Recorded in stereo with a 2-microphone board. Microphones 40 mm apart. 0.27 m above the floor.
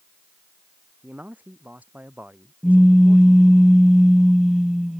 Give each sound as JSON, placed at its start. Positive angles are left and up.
{"t": 1.0, "sound": "a man speaking", "side_deg": -45}
{"t": 2.6, "sound": "a pop", "side_deg": -10}